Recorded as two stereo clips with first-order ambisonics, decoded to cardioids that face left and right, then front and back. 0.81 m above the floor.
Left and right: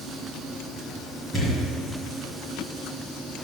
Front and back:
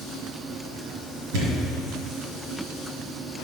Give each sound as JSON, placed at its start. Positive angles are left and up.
{"t": 1.3, "sound": "a thud", "azimuth_deg": 170, "distance_m": 2.0}